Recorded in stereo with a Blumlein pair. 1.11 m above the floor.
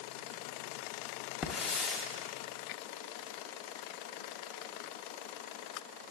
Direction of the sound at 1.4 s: 25° left.